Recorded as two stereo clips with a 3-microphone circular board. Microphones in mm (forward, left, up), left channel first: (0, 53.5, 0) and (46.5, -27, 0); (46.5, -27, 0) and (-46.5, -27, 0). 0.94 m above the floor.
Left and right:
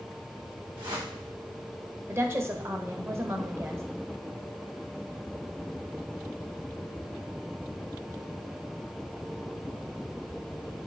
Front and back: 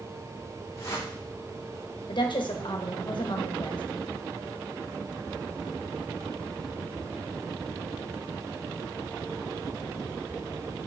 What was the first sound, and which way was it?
A whoosh, 50° right.